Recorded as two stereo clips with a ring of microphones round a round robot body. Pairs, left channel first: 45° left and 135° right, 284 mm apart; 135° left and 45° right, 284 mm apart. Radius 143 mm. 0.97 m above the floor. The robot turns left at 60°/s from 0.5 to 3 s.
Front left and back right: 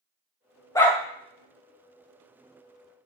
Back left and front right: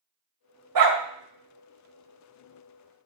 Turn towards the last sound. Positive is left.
turn(degrees=-170)